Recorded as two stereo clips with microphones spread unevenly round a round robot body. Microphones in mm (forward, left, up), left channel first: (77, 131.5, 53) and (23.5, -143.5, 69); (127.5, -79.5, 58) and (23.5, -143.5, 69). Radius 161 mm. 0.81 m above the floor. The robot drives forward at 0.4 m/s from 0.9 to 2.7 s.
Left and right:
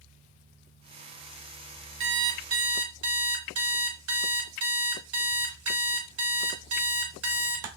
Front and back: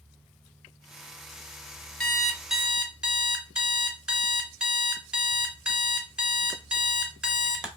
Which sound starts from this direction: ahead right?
An alarm clock, at 2.0 s.